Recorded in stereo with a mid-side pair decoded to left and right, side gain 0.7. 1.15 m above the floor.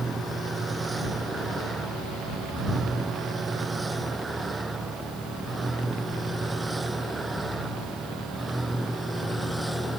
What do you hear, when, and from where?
0.0 s a vehicle: 20° right; by 10.0 s 5° right